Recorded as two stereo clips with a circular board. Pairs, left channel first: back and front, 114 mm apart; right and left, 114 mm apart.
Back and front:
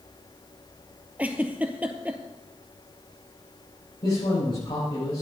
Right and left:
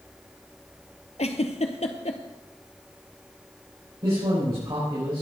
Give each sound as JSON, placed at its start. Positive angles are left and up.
{"t": 1.2, "sound": "a giggle", "azimuth_deg": -75, "distance_m": 1.1}
{"t": 4.0, "sound": "a man speaking", "azimuth_deg": 140, "distance_m": 7.0}